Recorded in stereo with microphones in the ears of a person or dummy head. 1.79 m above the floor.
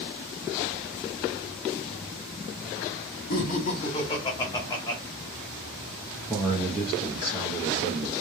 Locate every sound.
3.3 s laughter: 50° left (ahead or behind), 0.7 m; by 5.0 s 20° left (ahead or behind), 1.3 m
6.3 s a man speaking: centre (ahead or behind), 1.0 m